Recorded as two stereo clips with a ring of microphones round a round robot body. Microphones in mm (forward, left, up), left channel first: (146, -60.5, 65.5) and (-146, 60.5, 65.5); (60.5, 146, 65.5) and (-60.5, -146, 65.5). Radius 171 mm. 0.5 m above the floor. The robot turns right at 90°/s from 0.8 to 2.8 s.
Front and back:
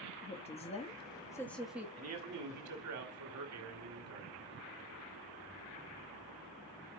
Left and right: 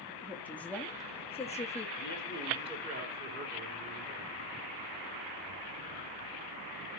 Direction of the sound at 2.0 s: 115° left.